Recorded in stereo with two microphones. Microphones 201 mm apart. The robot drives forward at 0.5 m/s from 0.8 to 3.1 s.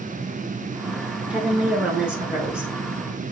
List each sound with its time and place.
1.3 s a woman speaking: 5° right (ahead or behind), 1.2 m